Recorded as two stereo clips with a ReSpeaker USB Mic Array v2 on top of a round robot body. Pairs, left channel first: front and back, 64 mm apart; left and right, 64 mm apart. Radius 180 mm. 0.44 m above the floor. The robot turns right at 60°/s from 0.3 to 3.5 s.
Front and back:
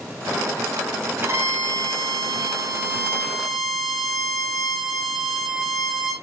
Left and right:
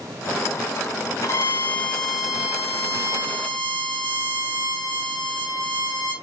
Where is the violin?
125° left, 2 m; by 6.1 s 95° right, 2 m.